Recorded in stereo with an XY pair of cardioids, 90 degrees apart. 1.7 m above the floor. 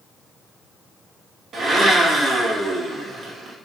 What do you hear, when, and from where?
1.5 s a blender: 60° right, 1.0 m